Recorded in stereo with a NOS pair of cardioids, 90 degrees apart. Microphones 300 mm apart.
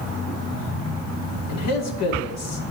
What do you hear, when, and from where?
1.5 s a man speaking: 65° left, 2 m